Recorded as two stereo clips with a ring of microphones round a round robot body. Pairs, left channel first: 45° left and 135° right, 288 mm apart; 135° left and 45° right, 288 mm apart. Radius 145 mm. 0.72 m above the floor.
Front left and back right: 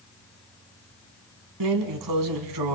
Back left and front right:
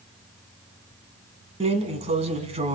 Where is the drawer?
115° right, 1.8 m.